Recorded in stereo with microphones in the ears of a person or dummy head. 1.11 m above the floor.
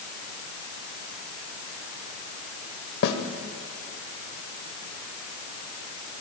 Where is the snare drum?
60° left (ahead or behind), 2.0 m.